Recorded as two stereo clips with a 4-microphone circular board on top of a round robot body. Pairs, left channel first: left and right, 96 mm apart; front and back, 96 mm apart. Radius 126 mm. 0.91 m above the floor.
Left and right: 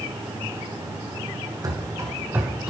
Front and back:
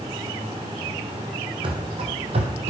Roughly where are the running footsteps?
Behind right.